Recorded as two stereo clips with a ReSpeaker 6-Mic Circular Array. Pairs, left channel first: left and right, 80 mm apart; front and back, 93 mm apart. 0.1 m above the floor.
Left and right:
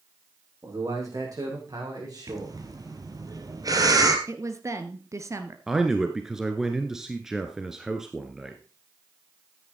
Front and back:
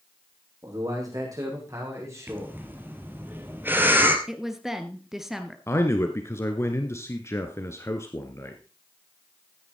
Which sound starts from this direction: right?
A woman speaking, at 4.3 s.